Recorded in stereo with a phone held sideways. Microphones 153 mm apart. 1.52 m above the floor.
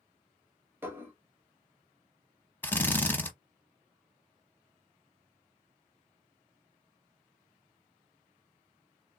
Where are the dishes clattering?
15° right (ahead or behind), 1.4 m.